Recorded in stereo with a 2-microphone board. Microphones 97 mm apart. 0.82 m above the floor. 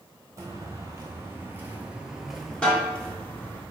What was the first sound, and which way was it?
Footsteps, 30° right (ahead or behind).